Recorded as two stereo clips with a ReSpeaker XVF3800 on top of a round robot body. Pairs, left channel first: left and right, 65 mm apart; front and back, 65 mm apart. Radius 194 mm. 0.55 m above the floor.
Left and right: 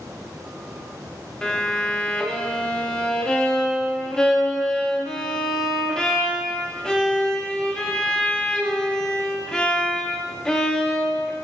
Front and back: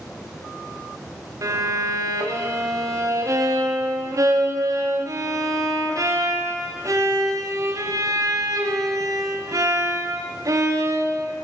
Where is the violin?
165° left, 2.0 m.